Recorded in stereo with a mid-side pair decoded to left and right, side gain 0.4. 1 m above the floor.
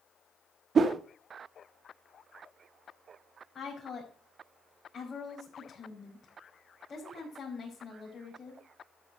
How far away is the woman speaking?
About 5 m.